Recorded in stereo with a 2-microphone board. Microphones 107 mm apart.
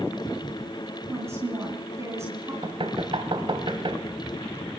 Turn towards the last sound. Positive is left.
turn(degrees=-50)  # may be behind; listen again after turning